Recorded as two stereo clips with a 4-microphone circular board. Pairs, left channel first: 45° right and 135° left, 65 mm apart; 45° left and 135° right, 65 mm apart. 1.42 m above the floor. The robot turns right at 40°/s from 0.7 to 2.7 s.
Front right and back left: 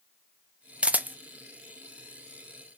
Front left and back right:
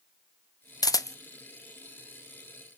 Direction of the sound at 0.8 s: 60° left.